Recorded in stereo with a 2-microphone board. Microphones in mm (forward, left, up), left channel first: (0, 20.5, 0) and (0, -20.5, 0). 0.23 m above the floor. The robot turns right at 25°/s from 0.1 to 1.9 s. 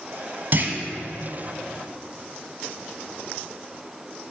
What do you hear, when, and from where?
0.5 s a clunk: 45° right (ahead or behind), 1.0 m